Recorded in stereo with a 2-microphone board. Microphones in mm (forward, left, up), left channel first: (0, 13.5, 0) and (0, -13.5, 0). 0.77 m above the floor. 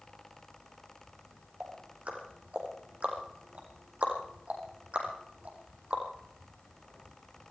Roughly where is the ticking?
Right.